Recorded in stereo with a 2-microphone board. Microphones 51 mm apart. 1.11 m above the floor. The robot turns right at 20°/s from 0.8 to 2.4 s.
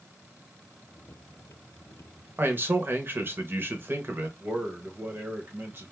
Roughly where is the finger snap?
No finger snap in this recording.